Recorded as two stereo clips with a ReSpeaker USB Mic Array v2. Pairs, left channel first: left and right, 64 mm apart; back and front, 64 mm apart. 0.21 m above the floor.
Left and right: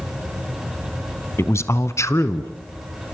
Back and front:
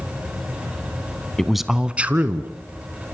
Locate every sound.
1.4 s a man speaking: 100° left, 1.3 m; by 2.5 s 55° left, 2 m